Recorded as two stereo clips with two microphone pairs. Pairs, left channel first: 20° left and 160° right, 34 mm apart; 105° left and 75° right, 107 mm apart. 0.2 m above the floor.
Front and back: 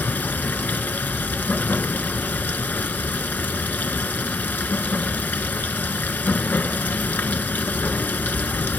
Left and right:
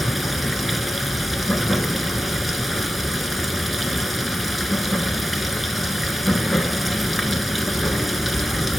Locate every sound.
0.0 s running water: 15° left, 0.8 m